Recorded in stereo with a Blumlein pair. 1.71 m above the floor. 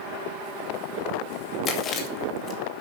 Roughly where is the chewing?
Ahead left.